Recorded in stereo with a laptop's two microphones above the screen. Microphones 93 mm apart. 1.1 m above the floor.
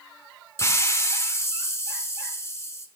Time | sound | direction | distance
0.6 | a hiss | 35° left (ahead or behind) | 1.1 m